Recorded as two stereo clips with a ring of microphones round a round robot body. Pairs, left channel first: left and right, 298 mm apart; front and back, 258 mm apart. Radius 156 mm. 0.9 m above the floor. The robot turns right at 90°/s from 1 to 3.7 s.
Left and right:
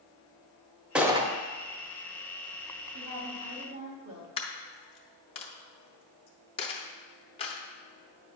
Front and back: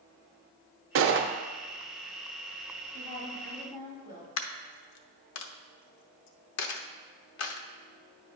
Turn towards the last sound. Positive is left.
turn(degrees=20)